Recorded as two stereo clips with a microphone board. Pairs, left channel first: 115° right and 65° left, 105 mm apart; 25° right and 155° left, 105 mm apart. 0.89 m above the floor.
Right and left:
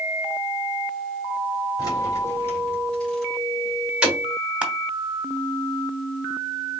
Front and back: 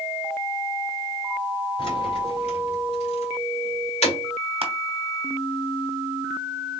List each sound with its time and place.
1.8 s keys jangling: 60° right, 2 m; by 4.2 s 10° right, 2.5 m
4.6 s crushing: 145° left, 1.0 m